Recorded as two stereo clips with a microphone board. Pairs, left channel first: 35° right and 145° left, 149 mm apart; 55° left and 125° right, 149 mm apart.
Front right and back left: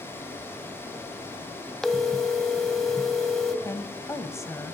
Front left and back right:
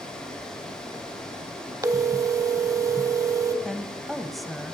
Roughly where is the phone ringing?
Behind right.